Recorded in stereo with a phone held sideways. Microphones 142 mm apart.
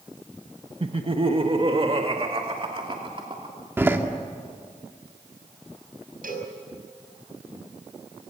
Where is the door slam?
15° right (ahead or behind), 1.8 m.